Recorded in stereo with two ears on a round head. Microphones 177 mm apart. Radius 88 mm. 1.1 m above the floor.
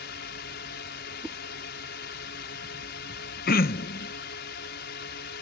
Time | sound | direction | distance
0.0 | a drone | 55° left (ahead or behind) | ?
1.2 | a whoosh | 5° right (ahead or behind) | ?
3.5 | throat clearing | 50° left (ahead or behind) | ?